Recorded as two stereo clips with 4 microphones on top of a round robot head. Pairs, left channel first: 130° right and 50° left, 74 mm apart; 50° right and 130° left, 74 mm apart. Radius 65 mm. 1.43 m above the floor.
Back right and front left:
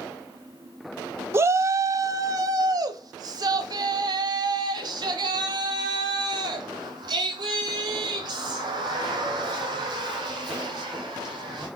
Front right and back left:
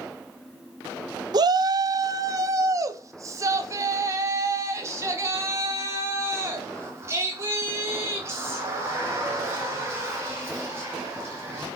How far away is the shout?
About 0.9 m.